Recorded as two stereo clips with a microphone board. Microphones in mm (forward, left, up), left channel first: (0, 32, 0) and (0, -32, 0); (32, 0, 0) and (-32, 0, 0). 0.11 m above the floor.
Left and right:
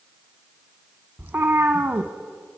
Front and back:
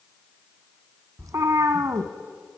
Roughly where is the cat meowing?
Behind right.